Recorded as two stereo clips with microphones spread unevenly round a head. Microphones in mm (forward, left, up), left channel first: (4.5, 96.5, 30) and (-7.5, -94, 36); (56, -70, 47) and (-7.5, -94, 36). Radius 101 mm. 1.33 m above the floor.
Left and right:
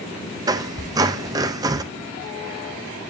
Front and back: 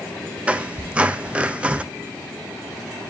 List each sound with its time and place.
0.5 s a squeak: 90° right, 0.5 m